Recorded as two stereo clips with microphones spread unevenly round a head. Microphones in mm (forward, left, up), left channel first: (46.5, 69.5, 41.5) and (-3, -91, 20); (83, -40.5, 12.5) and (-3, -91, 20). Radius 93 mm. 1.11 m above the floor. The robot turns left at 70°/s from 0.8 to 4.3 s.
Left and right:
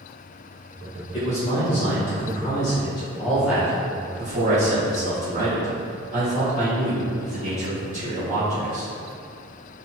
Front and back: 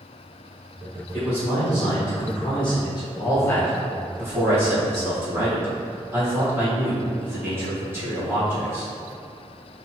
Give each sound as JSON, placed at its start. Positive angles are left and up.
{"t": 1.1, "sound": "a man speaking", "azimuth_deg": 135, "distance_m": 1.0}